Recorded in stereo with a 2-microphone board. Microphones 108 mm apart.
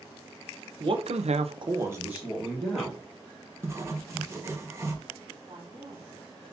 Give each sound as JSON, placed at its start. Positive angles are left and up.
{"t": 0.8, "sound": "a man speaking", "side_deg": -50, "distance_m": 0.8}
{"t": 3.6, "sound": "writing", "side_deg": -25, "distance_m": 0.9}
{"t": 5.5, "sound": "a woman speaking", "side_deg": -30, "distance_m": 2.0}